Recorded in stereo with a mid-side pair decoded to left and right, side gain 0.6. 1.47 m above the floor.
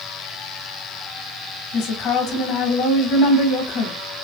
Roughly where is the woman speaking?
Left.